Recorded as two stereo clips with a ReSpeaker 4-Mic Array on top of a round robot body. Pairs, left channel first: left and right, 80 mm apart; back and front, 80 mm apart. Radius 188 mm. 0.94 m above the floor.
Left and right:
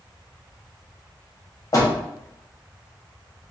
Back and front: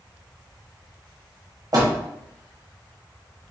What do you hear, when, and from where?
1.7 s a door slam: 45° left, 0.8 m